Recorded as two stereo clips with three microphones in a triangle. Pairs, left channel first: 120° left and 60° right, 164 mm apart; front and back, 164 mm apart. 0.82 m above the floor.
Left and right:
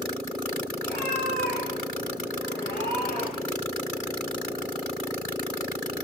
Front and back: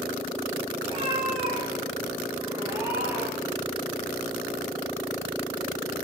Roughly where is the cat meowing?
Behind left.